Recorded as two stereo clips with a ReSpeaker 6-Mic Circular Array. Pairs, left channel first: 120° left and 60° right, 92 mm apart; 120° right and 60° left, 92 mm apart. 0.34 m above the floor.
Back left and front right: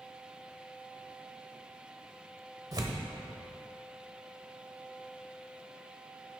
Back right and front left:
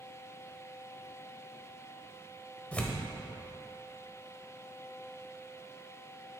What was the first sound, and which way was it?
Tearing paper, 50° right.